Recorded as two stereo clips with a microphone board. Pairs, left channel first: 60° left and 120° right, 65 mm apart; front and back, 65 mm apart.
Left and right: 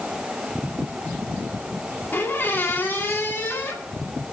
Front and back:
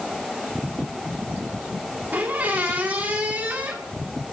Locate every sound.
2.1 s a squeak: 120° left, 1.8 m